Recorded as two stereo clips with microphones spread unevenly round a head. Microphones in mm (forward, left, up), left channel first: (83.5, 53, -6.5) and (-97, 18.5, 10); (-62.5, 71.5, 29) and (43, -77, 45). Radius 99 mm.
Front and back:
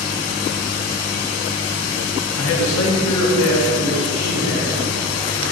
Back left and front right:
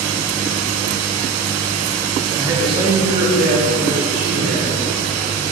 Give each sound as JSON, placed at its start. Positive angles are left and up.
{"t": 2.4, "sound": "a man speaking", "azimuth_deg": 20, "distance_m": 0.7}